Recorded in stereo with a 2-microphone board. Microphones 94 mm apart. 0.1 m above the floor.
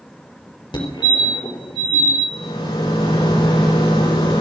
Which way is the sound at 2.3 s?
65° left (ahead or behind).